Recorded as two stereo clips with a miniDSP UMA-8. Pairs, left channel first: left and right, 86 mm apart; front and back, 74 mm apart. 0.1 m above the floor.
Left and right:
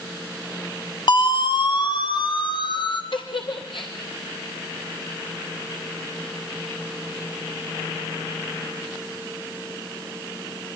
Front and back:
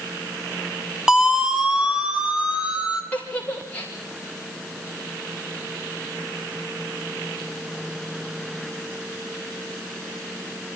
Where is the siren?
100° left, 2.5 m; by 3.0 s 105° left, 4 m.